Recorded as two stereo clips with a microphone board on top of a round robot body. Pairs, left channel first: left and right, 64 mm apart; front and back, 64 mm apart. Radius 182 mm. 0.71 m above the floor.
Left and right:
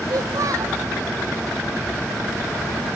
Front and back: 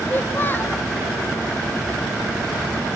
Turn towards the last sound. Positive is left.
turn(degrees=-60)